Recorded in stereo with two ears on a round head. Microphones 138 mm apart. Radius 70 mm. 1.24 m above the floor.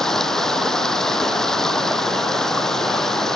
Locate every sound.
0.0 s running water: 5° left (ahead or behind)